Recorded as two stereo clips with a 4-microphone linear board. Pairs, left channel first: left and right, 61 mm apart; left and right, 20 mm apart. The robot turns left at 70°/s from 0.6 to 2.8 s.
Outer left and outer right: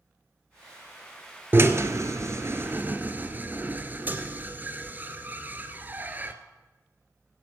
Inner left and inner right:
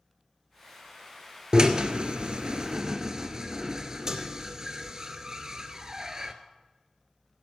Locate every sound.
1.5 s a drill: 35° right (ahead or behind), 0.7 m; by 6.3 s 30° right (ahead or behind), 0.7 m